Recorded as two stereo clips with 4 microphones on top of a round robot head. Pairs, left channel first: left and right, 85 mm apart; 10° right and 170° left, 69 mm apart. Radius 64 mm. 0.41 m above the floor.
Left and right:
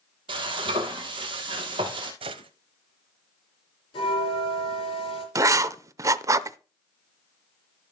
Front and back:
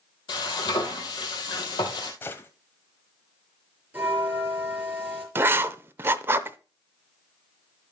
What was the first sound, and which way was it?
Frying, 50° right.